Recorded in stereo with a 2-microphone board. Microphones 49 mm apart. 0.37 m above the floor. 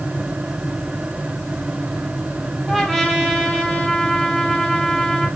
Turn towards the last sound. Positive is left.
turn(degrees=0)  # may be behind; listen again after turning